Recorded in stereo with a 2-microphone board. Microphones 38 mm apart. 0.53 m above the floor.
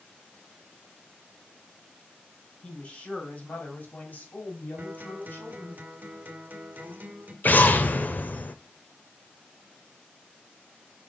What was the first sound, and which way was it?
A woman speaking, 30° left (ahead or behind).